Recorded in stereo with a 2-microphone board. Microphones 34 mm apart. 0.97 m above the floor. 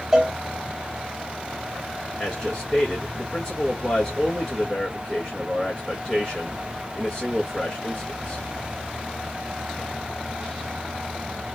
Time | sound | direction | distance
0.1 | a cowbell | 15° right (ahead or behind) | 1.2 m
2.2 | a man speaking | 10° left (ahead or behind) | 1.6 m